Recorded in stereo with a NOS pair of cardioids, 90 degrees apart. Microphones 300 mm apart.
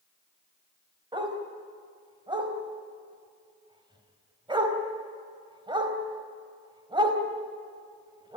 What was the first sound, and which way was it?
A dog barking, 15° right.